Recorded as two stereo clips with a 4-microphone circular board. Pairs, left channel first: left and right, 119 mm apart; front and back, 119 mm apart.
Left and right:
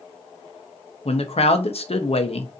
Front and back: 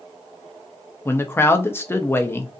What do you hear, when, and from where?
1.1 s a man speaking: 70° left, 0.8 m